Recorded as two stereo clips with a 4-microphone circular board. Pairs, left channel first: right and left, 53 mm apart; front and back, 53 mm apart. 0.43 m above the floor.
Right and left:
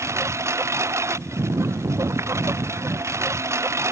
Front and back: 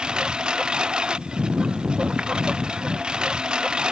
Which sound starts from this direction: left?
A lawn mower, at 0.0 s.